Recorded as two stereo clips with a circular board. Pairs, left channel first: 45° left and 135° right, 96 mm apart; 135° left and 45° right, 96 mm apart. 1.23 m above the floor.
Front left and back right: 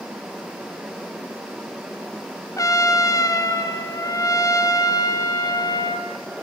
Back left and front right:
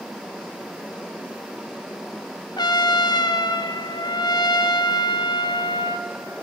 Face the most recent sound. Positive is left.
turn(degrees=95)